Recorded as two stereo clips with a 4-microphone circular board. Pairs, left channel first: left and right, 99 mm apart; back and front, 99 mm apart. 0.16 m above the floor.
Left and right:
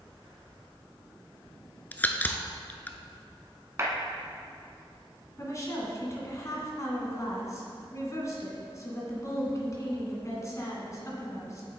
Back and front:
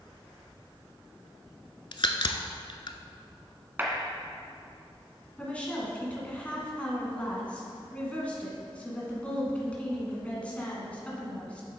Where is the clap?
50° right, 1.5 m.